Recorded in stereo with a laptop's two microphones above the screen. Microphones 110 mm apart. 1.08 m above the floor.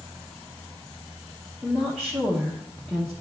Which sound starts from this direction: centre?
A woman speaking, at 1.6 s.